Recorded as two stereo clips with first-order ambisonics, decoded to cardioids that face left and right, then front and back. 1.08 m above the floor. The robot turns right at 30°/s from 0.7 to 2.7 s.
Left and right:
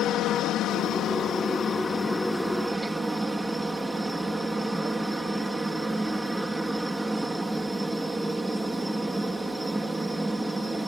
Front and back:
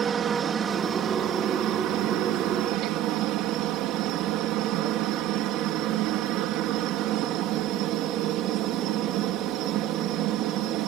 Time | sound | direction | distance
0.0 | a helicopter | 125° left | ?